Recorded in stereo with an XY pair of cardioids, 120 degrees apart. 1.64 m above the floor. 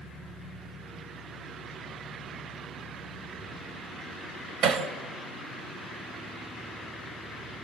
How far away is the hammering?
About 3 m.